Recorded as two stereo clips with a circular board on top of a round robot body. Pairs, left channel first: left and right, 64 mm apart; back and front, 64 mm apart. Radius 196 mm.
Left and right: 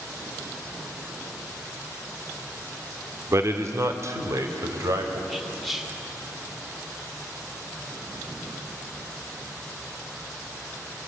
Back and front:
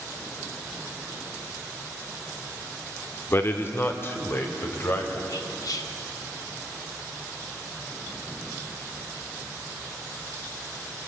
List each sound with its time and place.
3.3 s a man speaking: 130° right, 2.0 m
5.3 s whispering: straight behind, 3 m